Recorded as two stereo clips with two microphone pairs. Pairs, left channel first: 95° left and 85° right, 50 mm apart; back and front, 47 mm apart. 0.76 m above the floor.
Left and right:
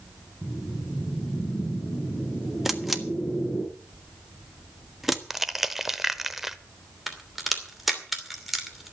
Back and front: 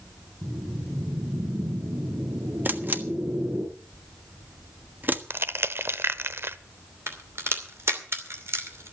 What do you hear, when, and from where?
0.4 s a whoosh: 15° left, 8.5 m
2.6 s a camera shutter: straight ahead, 1.3 m
5.3 s crushing: 5° right, 0.7 m
7.1 s a crack: straight ahead, 2.5 m